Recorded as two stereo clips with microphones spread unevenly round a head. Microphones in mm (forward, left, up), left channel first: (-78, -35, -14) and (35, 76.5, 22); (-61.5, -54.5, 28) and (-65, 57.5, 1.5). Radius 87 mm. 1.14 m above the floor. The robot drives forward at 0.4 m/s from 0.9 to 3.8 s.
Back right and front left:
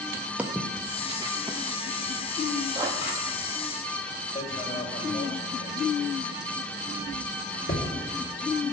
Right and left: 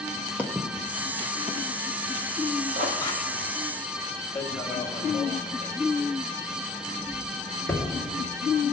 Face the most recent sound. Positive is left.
turn(degrees=-170)